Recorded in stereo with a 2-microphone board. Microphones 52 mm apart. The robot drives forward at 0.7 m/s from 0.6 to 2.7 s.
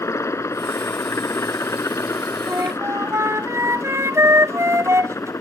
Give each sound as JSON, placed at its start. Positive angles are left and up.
{"t": 0.0, "sound": "a helicopter", "side_deg": 70}
{"t": 2.5, "sound": "a flute", "side_deg": -75}